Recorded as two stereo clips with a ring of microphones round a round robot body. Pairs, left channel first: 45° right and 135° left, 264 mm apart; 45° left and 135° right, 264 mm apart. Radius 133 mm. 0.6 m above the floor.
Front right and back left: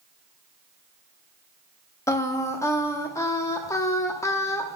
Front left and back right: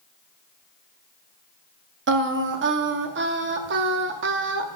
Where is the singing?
120° right, 0.7 m.